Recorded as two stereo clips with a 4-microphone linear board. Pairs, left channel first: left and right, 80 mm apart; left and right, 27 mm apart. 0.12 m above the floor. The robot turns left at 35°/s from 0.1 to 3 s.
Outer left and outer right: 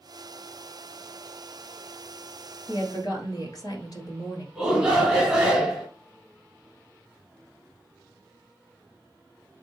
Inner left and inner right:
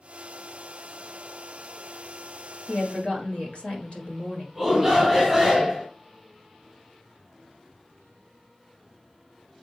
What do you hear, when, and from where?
2.7 s a woman speaking: 50° left (ahead or behind), 2 m
4.5 s a shout: 5° right (ahead or behind), 1.5 m